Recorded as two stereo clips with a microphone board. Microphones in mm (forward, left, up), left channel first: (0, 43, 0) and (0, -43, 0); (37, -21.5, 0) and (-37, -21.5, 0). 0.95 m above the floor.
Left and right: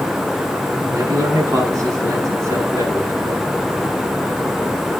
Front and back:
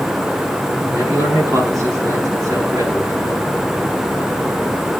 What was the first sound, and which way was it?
A man speaking, 135° right.